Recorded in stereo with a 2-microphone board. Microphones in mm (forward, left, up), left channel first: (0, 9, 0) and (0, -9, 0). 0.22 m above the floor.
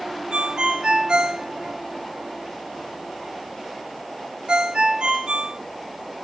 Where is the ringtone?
60° right (ahead or behind), 1.5 m.